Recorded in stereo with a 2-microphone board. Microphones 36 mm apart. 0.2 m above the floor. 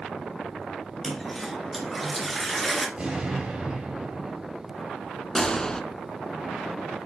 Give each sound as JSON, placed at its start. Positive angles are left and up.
{"t": 1.0, "sound": "a toilet flushing", "side_deg": 0, "distance_m": 1.5}
{"t": 3.0, "sound": "an explosion", "side_deg": -25, "distance_m": 3.5}
{"t": 5.3, "sound": "a gunshot", "side_deg": 15, "distance_m": 0.6}